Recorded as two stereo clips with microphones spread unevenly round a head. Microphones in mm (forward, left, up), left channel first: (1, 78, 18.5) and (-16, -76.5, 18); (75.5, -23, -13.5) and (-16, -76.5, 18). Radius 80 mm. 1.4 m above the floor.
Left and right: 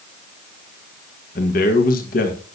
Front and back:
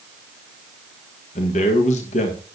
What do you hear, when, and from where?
1.4 s a man speaking: 45° left, 1.7 m